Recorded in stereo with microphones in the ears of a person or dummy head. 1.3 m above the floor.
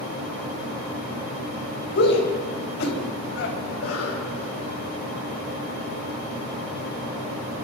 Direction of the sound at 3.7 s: 90° left.